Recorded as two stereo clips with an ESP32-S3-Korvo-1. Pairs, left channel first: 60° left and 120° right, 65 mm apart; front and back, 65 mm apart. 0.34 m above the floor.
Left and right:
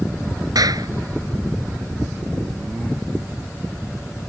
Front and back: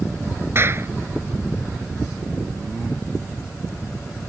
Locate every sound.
0.6 s a clap: 130° right